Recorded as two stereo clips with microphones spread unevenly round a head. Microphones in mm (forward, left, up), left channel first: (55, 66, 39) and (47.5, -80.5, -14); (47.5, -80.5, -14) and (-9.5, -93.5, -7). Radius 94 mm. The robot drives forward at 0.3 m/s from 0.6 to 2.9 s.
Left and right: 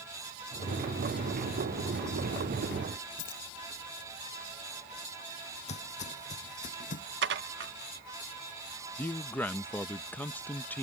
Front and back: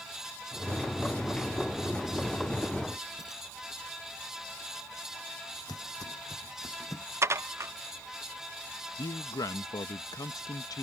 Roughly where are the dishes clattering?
Behind right.